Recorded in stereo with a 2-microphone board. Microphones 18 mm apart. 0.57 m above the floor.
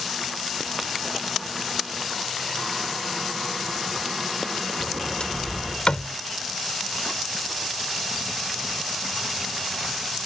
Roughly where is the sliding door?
Left.